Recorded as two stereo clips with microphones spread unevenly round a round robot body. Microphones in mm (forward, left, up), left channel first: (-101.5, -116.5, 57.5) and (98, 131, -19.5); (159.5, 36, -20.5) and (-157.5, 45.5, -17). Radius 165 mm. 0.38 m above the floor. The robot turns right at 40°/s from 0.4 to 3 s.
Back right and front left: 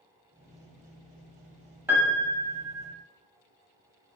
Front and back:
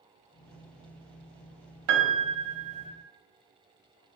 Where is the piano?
130° left, 0.6 m; by 2.9 s 170° left, 0.6 m.